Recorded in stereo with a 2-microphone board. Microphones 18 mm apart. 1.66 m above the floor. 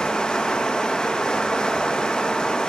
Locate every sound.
0.0 s running water: 55° left (ahead or behind), 1.3 m